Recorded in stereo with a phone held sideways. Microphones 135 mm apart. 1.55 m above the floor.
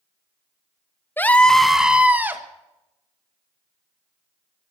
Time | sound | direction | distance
1.2 | a scream | 15° left (ahead or behind) | 1.0 m